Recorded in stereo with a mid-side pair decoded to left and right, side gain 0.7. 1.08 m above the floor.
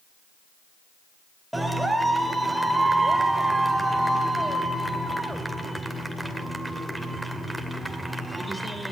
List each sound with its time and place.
1.5 s a clap: 5° right, 2.5 m